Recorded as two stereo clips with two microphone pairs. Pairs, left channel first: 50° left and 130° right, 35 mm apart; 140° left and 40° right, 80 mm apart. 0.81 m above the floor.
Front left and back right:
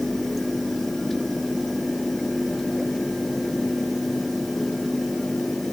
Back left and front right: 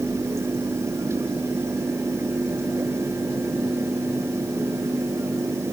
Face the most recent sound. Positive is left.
No sound to turn to.